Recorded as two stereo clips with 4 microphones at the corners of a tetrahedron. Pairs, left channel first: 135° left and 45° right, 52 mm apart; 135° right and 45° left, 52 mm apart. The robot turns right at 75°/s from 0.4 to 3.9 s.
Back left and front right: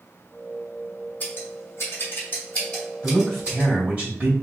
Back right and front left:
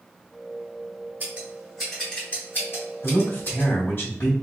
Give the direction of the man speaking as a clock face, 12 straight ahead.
6 o'clock.